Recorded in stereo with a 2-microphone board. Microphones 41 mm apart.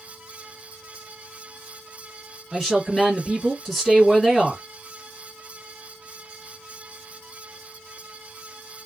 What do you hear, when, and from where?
2.5 s a woman speaking: centre (ahead or behind), 1.7 m